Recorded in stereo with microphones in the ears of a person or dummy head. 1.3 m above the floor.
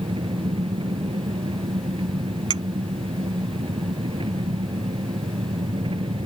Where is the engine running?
25° right (ahead or behind).